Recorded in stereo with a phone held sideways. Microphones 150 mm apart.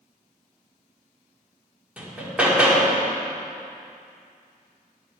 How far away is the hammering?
About 1.8 m.